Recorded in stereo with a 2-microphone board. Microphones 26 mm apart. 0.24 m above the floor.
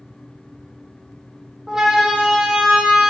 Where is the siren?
20° right (ahead or behind), 9.5 m; by 3.1 s 15° right (ahead or behind), 10.5 m.